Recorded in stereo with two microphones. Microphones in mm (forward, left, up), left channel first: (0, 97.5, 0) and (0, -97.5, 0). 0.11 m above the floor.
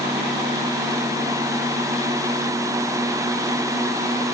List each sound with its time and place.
Only background noise.